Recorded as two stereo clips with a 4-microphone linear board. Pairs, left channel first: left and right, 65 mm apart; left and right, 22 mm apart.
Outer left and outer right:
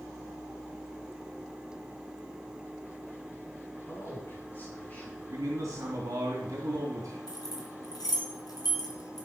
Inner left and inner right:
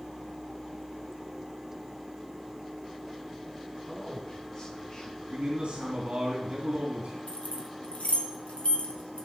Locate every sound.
3.9 s a man speaking: 35° left (ahead or behind), 4 m; by 5.2 s 15° left (ahead or behind), 3 m
5.3 s a man speaking: 55° right (ahead or behind), 3 m
7.3 s keys jangling: 75° left (ahead or behind), 2.5 m